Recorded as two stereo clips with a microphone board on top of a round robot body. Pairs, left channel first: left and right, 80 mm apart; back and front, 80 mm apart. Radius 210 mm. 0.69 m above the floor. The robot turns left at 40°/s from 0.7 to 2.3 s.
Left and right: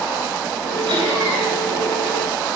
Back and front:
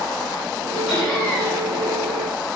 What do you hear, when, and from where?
0.9 s laughter: 85° right, 4 m; by 1.6 s 115° right, 4 m